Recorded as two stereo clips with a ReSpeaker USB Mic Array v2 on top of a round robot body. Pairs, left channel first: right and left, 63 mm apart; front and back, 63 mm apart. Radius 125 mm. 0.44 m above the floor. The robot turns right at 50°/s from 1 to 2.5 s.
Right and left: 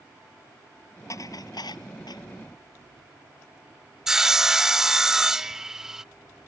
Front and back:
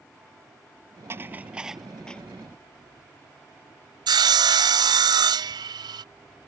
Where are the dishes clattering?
130° right; by 2.2 s 75° right.